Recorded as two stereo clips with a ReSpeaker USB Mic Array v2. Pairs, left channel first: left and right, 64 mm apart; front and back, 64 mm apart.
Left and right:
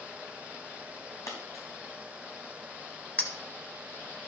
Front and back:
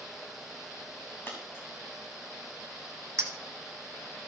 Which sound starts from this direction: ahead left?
A dropped coin, at 1.3 s.